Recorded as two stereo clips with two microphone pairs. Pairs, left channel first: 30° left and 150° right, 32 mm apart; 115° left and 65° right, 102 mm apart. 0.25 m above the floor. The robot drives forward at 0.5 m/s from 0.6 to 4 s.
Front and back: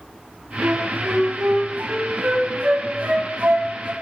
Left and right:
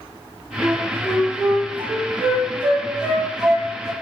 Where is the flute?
130° right, 2.5 m; by 3.9 s 150° right, 3.5 m.